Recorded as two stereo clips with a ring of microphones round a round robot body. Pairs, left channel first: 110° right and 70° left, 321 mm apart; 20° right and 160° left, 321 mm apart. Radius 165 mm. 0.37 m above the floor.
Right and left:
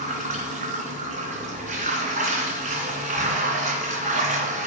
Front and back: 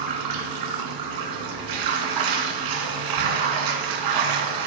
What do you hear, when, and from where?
0.0 s running water: 135° left, 2.5 m